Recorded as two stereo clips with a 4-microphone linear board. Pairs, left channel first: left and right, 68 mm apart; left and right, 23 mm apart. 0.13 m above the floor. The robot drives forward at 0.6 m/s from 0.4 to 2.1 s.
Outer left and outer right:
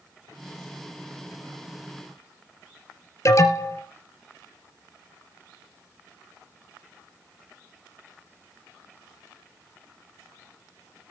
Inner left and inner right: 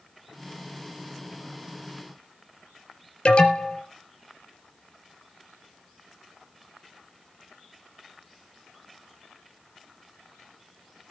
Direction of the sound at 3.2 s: 50° left (ahead or behind).